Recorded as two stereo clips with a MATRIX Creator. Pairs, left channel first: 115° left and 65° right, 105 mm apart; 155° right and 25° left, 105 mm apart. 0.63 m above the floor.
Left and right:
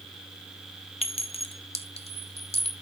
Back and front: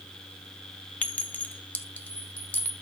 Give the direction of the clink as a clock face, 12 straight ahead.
8 o'clock.